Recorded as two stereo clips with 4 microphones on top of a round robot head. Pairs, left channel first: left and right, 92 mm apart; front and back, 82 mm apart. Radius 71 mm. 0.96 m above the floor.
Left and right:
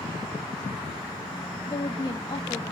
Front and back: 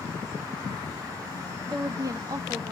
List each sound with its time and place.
1.7 s a woman speaking: 140° left, 1.9 m